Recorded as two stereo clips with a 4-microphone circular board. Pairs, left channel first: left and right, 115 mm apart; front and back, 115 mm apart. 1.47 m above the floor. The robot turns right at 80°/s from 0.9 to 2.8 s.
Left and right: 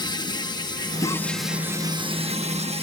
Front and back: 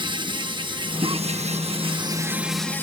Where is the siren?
No siren in this recording.